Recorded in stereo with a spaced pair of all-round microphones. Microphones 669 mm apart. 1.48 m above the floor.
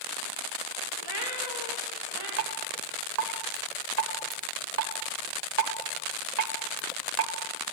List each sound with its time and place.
1.0 s a cat meowing: 35° right (ahead or behind), 4 m
2.4 s dripping: 75° right (ahead or behind), 1.3 m